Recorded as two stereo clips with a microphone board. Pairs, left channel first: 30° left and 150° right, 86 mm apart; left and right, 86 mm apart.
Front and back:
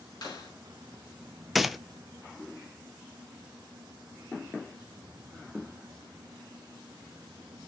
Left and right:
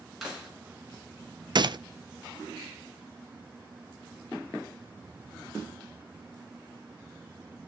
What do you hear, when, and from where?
0.2 s a clap: straight ahead, 5.5 m
1.6 s a gunshot: 60° right, 0.6 m